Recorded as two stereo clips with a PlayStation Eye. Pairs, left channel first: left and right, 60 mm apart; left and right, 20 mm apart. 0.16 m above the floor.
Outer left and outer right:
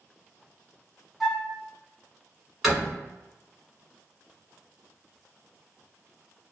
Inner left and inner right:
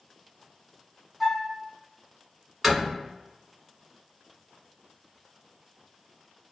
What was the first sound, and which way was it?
A flute, 5° right (ahead or behind).